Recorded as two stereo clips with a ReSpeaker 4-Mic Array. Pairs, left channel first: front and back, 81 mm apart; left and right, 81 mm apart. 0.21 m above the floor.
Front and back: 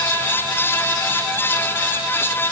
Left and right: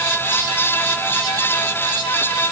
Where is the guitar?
I don't hear a guitar.